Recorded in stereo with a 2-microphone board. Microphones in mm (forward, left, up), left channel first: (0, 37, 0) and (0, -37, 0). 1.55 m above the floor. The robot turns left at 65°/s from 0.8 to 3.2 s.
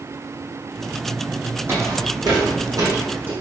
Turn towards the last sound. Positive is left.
turn(degrees=-25)  # may be behind; listen again after turning